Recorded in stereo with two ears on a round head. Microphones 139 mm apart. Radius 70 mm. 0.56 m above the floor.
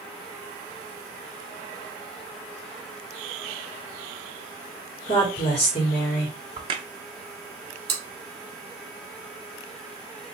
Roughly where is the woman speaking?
Left.